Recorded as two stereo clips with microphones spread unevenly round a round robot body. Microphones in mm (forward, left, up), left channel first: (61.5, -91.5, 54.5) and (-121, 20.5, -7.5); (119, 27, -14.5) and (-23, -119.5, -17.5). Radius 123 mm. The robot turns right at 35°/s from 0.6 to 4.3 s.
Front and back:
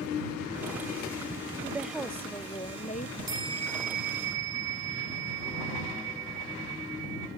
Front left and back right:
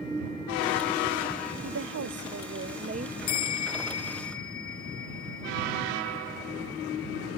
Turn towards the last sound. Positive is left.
turn(degrees=100)